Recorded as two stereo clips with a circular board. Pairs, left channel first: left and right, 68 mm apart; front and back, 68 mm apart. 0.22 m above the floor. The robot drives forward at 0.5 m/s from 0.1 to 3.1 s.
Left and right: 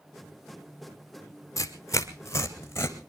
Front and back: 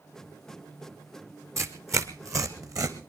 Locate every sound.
1.6 s tearing paper: 130° left, 1.9 m; by 3.0 s 145° left, 2.5 m